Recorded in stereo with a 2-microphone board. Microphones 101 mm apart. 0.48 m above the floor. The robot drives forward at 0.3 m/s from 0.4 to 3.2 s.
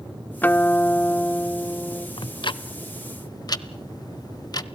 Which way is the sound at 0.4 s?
20° left (ahead or behind).